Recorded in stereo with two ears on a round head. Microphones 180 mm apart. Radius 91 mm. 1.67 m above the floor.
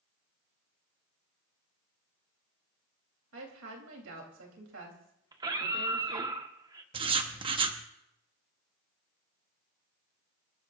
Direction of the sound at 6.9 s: 30° right (ahead or behind).